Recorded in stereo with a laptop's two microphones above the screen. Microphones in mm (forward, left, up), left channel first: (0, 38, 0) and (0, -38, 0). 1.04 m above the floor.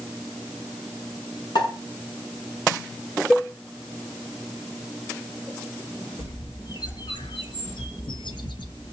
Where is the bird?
80° left, 1.1 m.